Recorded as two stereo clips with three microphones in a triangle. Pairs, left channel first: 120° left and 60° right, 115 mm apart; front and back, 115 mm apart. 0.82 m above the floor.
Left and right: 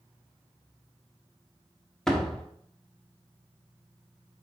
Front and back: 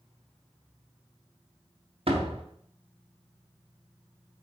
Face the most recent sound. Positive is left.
turn(degrees=-155)